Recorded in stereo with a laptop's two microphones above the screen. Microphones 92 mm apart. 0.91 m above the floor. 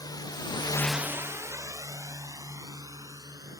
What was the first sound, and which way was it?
A drone, 45° left (ahead or behind).